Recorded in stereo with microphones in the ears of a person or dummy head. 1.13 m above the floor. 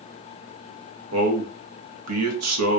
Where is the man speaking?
75° right (ahead or behind), 0.7 m.